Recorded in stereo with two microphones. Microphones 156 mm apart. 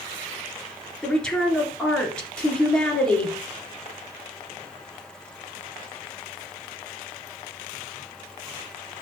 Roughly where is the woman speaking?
Centre.